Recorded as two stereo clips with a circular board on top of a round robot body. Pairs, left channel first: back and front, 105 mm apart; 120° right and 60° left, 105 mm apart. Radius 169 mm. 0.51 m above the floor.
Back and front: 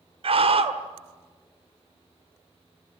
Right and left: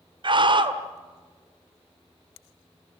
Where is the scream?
20° left, 2 m.